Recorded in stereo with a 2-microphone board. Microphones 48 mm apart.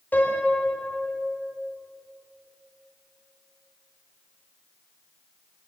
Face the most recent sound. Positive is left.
turn(degrees=40)  # may be behind; listen again after turning